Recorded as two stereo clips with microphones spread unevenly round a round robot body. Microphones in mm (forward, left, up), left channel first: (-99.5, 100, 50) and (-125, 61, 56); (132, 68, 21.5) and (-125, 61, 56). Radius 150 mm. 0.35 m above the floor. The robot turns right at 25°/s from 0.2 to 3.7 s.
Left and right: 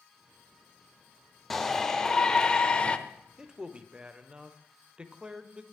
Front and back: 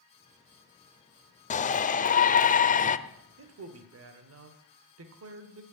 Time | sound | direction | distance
1.5 | a shout | 20° right | 1.0 m
3.4 | a man speaking | 160° left | 1.2 m